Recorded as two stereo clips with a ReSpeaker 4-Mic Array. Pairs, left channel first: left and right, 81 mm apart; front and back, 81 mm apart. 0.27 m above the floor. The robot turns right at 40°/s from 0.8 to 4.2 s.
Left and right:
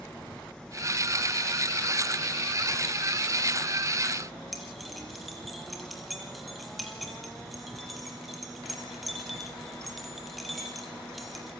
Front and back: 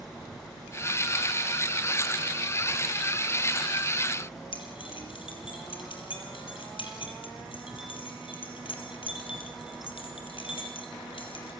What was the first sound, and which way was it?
Keys jangling, straight ahead.